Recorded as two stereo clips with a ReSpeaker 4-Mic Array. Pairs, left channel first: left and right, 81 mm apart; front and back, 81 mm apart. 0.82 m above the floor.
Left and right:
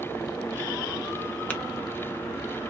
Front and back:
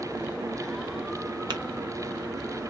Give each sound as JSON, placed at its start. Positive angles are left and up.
{"t": 1.5, "sound": "tapping", "azimuth_deg": 165, "distance_m": 0.6}